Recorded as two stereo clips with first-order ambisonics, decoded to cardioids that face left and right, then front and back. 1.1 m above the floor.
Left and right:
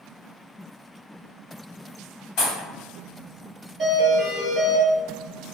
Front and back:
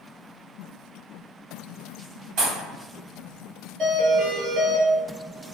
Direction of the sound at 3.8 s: 150° right.